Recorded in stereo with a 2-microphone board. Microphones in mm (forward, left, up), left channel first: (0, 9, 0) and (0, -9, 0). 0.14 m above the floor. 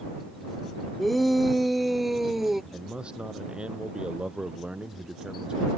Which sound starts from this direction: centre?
A shout, at 1.0 s.